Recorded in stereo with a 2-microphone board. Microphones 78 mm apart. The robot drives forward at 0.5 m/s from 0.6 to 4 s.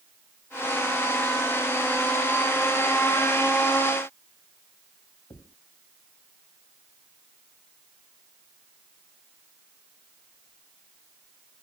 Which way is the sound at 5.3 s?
85° left.